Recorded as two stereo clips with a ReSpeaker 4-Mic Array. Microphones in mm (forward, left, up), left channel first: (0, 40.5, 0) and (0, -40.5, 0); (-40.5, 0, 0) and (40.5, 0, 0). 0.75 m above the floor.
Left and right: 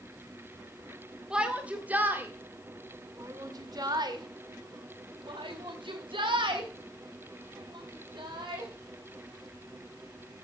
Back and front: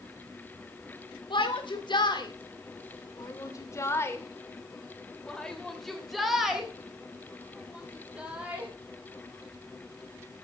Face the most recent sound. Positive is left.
turn(degrees=-70)